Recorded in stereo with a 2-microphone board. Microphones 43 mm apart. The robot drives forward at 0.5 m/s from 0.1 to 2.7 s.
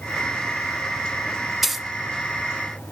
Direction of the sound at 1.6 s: 5° right (ahead or behind).